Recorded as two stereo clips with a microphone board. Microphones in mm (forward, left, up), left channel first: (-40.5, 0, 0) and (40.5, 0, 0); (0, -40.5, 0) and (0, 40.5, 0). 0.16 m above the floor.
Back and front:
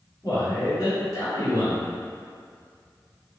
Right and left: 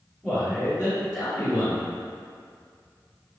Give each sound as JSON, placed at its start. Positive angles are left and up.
{"t": 0.2, "sound": "a man speaking", "azimuth_deg": 175, "distance_m": 1.4}